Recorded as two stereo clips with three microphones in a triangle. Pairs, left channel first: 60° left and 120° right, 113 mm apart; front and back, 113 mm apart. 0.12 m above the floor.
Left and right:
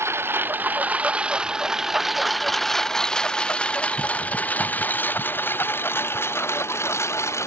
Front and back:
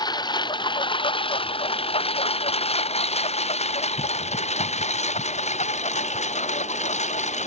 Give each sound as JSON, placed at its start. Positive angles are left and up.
{"t": 0.0, "sound": "a lawn mower", "azimuth_deg": -55}